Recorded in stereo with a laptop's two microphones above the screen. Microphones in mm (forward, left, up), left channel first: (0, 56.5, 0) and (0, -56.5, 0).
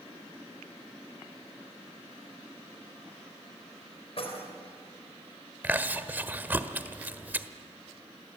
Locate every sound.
4.2 s keys jangling: 60° left (ahead or behind), 3.5 m
5.6 s chewing: 15° right (ahead or behind), 1.3 m